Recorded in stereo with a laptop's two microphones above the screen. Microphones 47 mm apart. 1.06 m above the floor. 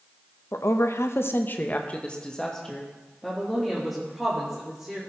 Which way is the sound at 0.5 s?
70° left (ahead or behind).